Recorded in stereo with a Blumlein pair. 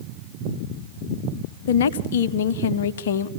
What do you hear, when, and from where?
1.7 s a woman speaking: 60° left, 0.9 m